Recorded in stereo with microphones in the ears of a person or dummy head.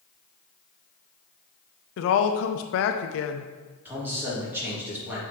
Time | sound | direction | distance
2.0 | a woman speaking | 70° left (ahead or behind) | 0.5 m
3.9 | a man speaking | 15° right (ahead or behind) | 2.5 m